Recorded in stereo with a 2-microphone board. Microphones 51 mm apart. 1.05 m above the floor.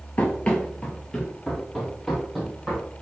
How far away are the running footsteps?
About 1.2 m.